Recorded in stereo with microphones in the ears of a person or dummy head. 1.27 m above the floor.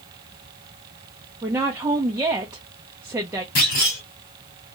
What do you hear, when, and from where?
1.4 s a woman speaking: 20° right (ahead or behind), 0.5 m
3.5 s a clunk: 45° left (ahead or behind), 1.5 m